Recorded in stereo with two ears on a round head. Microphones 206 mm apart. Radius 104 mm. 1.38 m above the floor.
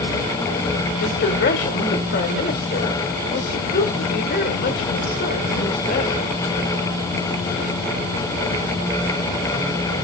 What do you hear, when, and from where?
1.0 s a woman speaking: 50° left (ahead or behind), 1.6 m